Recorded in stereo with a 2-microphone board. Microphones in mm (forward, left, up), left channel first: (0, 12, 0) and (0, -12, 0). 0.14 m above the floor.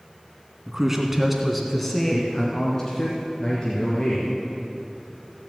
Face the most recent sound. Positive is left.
turn(degrees=40)  # may be behind; listen again after turning